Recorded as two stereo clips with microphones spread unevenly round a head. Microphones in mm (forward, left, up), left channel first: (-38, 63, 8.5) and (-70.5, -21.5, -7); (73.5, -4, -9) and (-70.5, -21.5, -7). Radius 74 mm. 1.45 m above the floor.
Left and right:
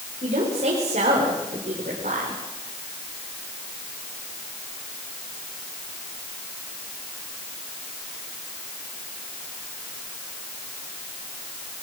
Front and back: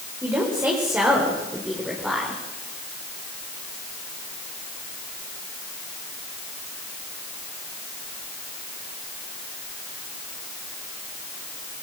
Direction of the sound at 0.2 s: 100° right.